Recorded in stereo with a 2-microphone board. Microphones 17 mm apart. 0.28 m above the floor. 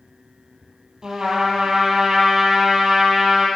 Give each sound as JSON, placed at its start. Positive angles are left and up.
{"t": 1.0, "sound": "a trumpet", "side_deg": -45, "distance_m": 2.0}